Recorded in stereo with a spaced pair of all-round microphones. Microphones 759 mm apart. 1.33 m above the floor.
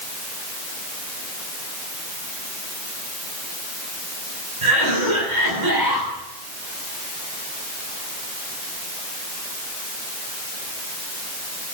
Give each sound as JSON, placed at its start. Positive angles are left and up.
{"t": 4.6, "sound": "a cough", "side_deg": -70, "distance_m": 9.0}